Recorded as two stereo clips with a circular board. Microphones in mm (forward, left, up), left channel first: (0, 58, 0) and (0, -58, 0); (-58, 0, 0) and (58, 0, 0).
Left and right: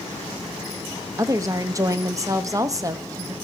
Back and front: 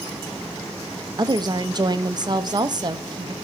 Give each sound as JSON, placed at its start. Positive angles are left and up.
{"t": 1.2, "sound": "a woman speaking", "azimuth_deg": -40, "distance_m": 0.9}